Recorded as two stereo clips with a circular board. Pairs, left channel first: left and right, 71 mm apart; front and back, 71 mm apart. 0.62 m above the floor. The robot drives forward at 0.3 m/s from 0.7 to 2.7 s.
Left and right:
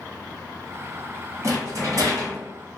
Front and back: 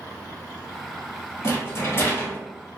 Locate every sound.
1.4 s a rattle: 45° right, 1.5 m; by 2.4 s 55° right, 1.3 m